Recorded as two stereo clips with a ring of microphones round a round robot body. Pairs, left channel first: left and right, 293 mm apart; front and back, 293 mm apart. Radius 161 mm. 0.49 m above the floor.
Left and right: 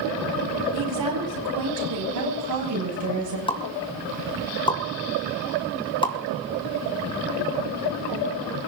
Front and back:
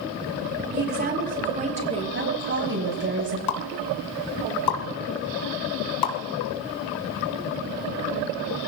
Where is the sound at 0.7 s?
125° right, 4 m; by 2.0 s 110° right, 5.5 m.